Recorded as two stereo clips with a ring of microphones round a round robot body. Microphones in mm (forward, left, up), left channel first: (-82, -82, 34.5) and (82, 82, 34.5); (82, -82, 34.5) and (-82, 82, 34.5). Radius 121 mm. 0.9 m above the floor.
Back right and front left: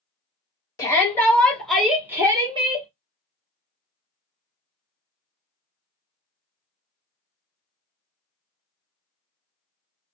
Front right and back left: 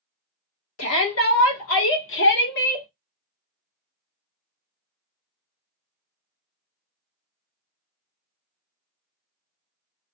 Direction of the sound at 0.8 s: 60° right.